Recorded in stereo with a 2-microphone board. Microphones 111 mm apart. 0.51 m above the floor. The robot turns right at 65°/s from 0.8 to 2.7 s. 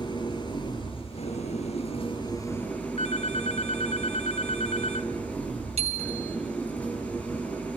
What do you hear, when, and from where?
0.0 s an engine running: 40° left, 8 m; by 7.8 s 165° left, 8 m
3.0 s a phone ringing: 70° left (ahead or behind), 1.2 m
5.8 s a bicycle bell: 75° right (ahead or behind), 2.5 m